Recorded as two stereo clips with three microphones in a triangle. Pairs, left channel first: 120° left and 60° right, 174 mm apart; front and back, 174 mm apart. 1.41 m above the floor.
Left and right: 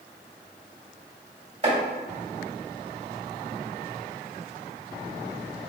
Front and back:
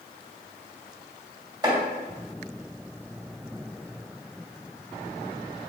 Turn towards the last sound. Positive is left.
turn(degrees=-115)